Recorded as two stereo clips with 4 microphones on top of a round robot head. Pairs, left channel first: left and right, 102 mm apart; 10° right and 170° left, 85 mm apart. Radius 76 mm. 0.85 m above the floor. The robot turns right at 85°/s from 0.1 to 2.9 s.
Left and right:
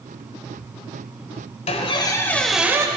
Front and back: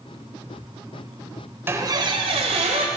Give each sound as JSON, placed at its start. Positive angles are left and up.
{"t": 1.7, "sound": "a squeak", "azimuth_deg": 110, "distance_m": 1.2}